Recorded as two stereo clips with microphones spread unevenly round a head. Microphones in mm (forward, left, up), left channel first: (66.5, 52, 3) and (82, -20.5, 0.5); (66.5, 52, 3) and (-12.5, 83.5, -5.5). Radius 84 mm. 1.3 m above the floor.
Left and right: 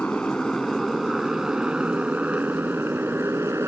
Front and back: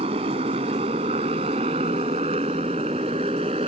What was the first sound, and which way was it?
A motorcycle, 175° right.